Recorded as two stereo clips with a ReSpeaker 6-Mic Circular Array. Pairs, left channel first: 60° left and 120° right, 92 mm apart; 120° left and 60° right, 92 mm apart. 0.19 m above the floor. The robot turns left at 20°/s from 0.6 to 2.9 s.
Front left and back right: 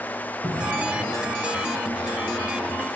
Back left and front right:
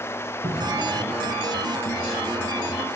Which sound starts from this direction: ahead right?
A cupboard door, at 0.4 s.